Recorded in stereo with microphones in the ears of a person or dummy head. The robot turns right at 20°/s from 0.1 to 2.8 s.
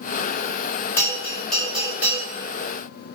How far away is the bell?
About 4 m.